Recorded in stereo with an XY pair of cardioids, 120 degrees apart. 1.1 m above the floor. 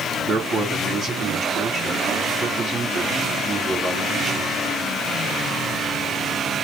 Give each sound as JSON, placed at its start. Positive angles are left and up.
{"t": 0.3, "sound": "a man speaking", "azimuth_deg": -40, "distance_m": 1.7}